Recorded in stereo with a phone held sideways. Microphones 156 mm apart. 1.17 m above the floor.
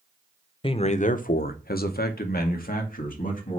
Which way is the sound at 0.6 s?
35° left (ahead or behind).